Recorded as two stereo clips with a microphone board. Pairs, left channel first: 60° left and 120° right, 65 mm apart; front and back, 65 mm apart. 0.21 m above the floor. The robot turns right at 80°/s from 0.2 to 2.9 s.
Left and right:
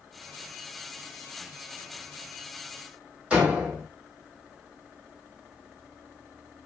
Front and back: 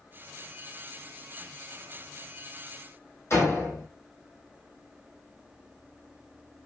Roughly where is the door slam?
Ahead right.